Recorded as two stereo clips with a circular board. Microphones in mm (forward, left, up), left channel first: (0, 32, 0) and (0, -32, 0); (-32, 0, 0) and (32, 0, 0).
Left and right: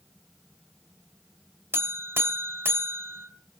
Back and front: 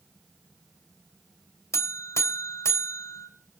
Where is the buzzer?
140° right, 2.5 m.